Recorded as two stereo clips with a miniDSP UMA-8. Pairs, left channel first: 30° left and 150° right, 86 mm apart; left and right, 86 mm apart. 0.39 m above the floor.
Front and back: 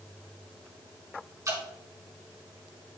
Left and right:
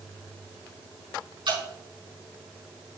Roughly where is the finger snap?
No finger snap in this recording.